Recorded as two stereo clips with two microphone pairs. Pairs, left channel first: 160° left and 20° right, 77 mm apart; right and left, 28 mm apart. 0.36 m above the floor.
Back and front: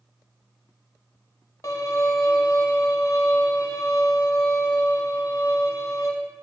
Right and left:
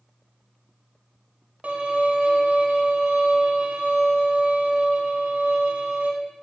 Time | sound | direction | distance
1.6 | a violin | 120° left | 0.8 m